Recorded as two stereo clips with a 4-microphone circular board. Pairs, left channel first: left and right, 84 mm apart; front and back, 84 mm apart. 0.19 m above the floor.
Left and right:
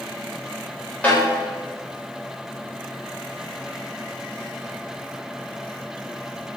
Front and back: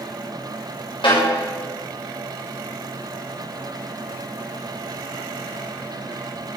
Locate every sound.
1.0 s a snare drum: 15° left, 8 m